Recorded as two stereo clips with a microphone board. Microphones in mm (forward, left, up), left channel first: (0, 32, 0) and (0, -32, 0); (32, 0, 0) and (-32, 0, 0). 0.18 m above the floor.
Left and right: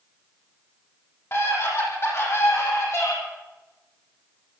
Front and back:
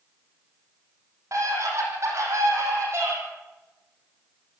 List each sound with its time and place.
1.3 s a scream: 140° left, 8.5 m; by 3.1 s 130° left, 10 m